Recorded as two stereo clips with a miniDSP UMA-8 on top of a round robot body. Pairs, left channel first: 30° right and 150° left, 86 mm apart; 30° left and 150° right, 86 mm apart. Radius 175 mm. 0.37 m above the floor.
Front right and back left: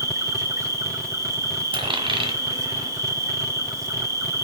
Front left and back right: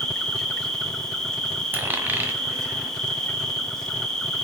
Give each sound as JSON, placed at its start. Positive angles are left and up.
{"t": 0.0, "sound": "an insect", "azimuth_deg": 110, "distance_m": 2.0}
{"t": 1.7, "sound": "a dropped coin", "azimuth_deg": 145, "distance_m": 1.7}